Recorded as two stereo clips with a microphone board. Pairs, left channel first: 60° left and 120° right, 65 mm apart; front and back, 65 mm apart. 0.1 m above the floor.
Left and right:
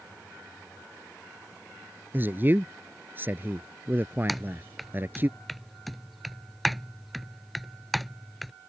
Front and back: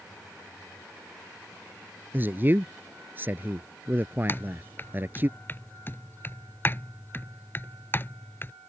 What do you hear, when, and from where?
2.1 s a man speaking: 150° right
4.3 s typing on a keyboard: 30° right